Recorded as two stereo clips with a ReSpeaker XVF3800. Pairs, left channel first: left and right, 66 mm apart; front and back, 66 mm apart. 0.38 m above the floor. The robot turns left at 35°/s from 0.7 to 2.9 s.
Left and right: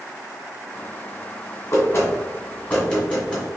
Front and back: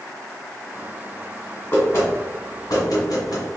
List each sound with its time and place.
1.7 s knocking: 55° left, 1.8 m; by 3.5 s 15° left, 1.8 m